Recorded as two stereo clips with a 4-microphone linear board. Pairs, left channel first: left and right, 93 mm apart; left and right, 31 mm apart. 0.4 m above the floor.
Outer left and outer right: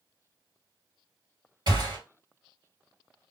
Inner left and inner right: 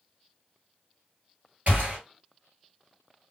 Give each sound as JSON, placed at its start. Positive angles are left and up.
{"t": 1.7, "sound": "a gunshot", "side_deg": -55, "distance_m": 2.0}